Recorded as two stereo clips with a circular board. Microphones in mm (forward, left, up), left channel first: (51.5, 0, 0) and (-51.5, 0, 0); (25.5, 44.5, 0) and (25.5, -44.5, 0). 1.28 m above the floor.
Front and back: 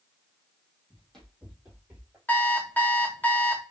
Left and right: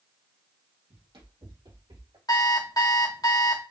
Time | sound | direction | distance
0.9 | running footsteps | 80° right | 2.5 m
2.3 | an alarm clock | 65° left | 1.0 m